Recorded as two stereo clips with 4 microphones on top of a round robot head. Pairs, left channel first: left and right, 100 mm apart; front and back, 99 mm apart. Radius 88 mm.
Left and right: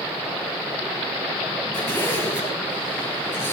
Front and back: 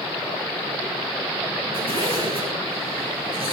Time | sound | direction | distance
1.7 | a zipper | 150° left | 7 m